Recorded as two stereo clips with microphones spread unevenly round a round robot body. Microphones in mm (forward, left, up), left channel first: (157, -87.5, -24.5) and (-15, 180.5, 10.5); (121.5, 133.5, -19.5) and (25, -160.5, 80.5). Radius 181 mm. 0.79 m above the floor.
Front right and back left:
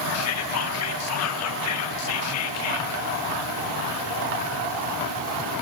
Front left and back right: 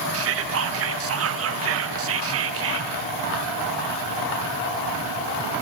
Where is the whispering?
55° right, 0.7 m.